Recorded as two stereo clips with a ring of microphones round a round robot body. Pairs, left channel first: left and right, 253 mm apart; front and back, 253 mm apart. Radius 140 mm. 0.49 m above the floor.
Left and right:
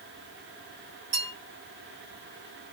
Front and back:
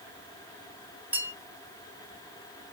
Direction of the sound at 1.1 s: 95° right.